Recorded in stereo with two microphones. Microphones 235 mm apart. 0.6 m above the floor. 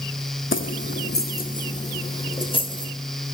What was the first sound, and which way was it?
Keys jangling, 60° left (ahead or behind).